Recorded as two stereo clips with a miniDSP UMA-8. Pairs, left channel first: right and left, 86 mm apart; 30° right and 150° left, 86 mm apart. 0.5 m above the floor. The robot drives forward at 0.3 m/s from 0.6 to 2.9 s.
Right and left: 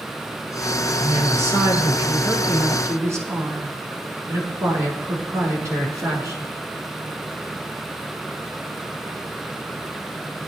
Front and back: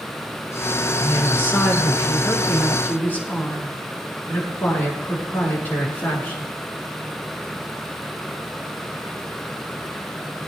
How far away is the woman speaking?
About 7 m.